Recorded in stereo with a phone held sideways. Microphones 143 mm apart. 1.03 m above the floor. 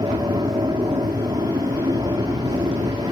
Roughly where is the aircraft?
Right.